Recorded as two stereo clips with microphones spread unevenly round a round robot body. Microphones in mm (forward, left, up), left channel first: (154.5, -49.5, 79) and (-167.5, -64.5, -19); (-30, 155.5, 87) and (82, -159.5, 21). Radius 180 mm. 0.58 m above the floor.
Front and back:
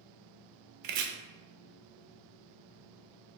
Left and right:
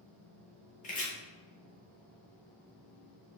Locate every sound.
0.8 s chopping: straight behind, 0.5 m